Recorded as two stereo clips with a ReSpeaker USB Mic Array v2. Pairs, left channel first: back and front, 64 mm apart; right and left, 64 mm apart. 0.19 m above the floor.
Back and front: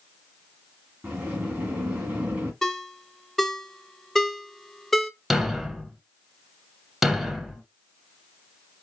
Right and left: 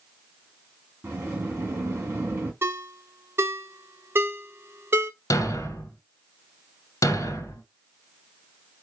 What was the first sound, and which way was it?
A sliding door, 55° left.